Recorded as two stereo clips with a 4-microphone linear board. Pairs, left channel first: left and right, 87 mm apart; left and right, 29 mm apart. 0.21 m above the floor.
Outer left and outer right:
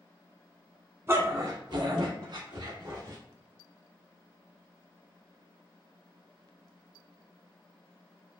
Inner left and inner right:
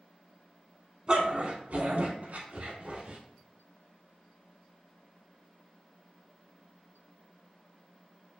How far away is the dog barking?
About 0.6 m.